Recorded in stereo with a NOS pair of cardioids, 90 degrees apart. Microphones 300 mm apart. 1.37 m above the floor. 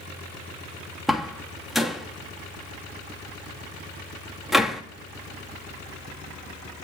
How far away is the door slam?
About 1.6 m.